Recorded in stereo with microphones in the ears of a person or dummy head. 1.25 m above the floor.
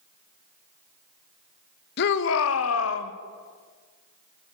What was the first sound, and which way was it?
A shout, 60° left (ahead or behind).